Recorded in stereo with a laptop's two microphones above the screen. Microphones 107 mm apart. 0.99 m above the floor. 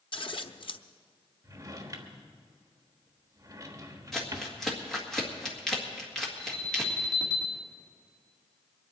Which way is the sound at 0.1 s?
55° left (ahead or behind).